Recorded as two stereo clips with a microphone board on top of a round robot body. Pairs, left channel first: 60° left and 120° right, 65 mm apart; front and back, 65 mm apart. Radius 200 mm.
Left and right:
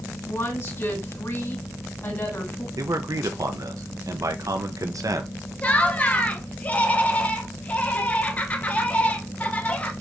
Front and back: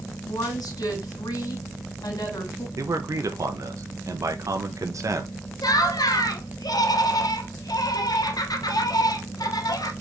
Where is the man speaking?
150° right, 1.1 m.